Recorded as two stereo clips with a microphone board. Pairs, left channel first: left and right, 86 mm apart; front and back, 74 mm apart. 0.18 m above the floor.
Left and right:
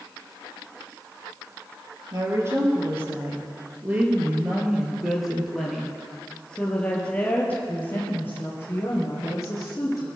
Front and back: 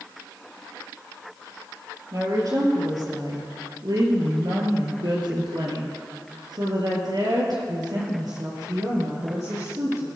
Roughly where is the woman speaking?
Behind right.